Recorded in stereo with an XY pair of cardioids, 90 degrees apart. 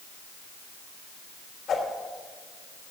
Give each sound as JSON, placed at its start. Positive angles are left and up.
{"t": 1.7, "sound": "a whoosh", "azimuth_deg": 65, "distance_m": 3.5}